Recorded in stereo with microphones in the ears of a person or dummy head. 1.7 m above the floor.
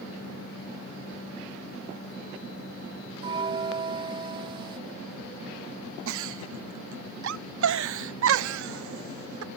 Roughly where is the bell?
Right.